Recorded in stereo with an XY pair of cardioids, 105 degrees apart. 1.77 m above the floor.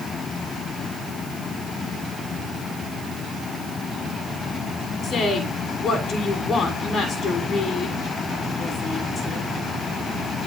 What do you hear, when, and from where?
5.0 s a woman speaking: 55° left, 6.5 m